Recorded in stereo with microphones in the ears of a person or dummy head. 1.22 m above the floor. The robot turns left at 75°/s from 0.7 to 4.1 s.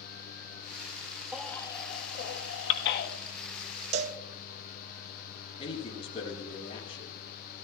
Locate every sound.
1.3 s a baby crying: 10° right (ahead or behind), 1.2 m; by 3.1 s 55° left (ahead or behind), 1.2 m
3.9 s a cowbell: 35° right (ahead or behind), 0.7 m; by 4.2 s 45° right (ahead or behind), 0.7 m
5.6 s a man speaking: 35° left (ahead or behind), 6.5 m